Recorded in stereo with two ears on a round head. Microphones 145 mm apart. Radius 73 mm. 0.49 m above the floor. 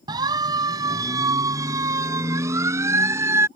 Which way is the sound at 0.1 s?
25° right (ahead or behind).